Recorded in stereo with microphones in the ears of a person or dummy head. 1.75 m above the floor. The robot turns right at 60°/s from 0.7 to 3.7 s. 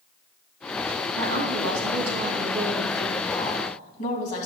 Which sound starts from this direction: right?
A woman speaking, at 1.2 s.